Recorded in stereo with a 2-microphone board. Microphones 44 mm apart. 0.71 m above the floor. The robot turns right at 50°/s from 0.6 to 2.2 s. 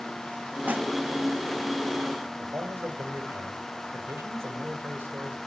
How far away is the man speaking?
About 2.5 m.